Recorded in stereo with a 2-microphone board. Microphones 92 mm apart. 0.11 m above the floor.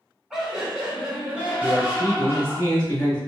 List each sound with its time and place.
0.3 s laughter: 5° right (ahead or behind), 1.5 m; by 2.6 s 25° right (ahead or behind), 1.3 m
1.6 s a man speaking: 20° left (ahead or behind), 1.6 m